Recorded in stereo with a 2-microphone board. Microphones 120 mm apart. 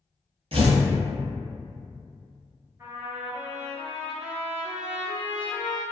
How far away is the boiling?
I don't hear boiling.